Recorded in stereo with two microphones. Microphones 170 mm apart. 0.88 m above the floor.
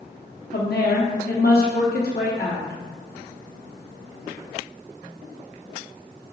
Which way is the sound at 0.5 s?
65° left (ahead or behind).